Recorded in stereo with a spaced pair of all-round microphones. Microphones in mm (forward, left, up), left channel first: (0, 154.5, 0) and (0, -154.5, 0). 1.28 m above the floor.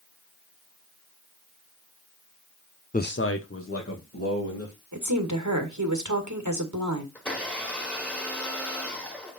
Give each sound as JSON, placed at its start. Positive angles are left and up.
{"t": 2.9, "sound": "a man speaking", "side_deg": 25, "distance_m": 0.5}
{"t": 4.9, "sound": "a woman speaking", "side_deg": -75, "distance_m": 1.8}
{"t": 7.2, "sound": "a blender", "side_deg": 5, "distance_m": 1.9}